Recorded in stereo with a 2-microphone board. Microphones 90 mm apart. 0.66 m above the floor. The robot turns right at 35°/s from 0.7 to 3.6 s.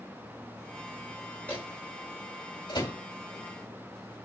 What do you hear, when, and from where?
1.5 s a microwave: 20° left (ahead or behind), 2.5 m; by 3.0 s 65° left (ahead or behind), 2.5 m